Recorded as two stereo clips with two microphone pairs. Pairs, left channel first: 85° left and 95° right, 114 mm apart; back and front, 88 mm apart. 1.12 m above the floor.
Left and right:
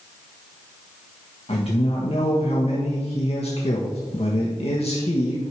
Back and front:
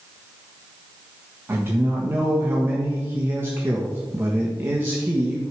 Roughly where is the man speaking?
Ahead left.